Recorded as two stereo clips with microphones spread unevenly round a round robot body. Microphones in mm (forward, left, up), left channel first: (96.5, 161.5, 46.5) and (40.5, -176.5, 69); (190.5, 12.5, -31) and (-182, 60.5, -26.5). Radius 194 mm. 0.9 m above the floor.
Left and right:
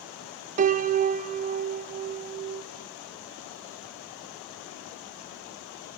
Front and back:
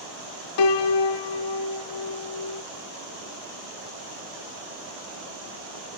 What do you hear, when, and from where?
0.6 s a piano: 35° right, 0.5 m